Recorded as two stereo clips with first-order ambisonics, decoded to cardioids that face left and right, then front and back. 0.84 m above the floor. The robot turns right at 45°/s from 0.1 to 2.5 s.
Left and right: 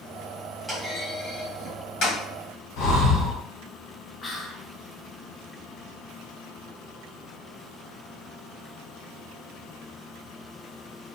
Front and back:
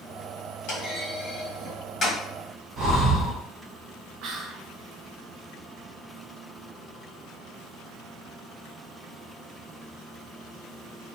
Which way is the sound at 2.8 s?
125° left.